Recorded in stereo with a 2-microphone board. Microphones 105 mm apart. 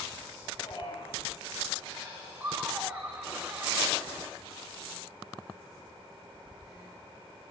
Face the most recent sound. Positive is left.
turn(degrees=-25)  # may be behind; listen again after turning